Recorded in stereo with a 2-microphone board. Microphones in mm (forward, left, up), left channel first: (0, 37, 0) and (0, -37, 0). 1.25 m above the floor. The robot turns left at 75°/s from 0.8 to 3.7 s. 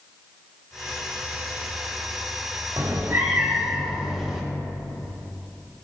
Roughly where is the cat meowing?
Right.